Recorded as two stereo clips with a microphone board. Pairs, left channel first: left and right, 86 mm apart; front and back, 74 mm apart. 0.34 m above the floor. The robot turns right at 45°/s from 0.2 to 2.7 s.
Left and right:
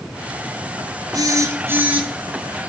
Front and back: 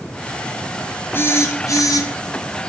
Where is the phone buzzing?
55° right, 1.2 m; by 2.1 s 15° right, 1.2 m.